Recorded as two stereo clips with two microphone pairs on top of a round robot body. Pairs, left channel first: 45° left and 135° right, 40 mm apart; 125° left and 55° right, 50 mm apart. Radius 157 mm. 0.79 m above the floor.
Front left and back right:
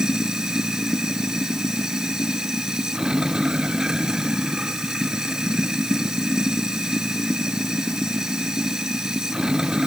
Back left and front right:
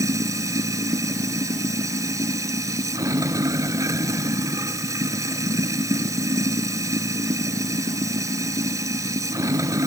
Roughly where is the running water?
Ahead right.